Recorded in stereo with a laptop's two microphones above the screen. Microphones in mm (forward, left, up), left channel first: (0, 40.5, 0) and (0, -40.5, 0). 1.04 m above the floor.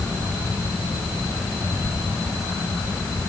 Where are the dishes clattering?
No dishes clattering in this recording.